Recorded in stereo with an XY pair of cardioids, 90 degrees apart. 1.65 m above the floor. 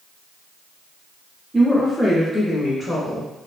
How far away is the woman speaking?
About 0.6 m.